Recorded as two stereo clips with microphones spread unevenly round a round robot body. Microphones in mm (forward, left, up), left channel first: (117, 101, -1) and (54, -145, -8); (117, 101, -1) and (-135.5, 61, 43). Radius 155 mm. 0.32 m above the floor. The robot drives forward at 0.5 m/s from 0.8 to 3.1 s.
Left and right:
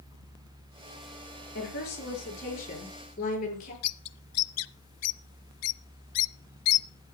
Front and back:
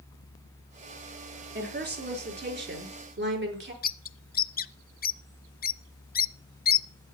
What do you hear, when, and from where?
1.6 s a woman speaking: 135° left, 4.5 m; by 3.7 s 140° left, 5 m
3.8 s a bird: 60° left, 0.7 m